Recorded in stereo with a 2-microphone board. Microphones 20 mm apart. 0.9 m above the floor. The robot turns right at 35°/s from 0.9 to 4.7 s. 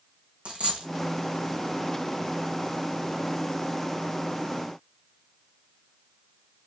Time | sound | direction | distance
0.5 | a dropped coin | 65° right (ahead or behind) | 1.9 m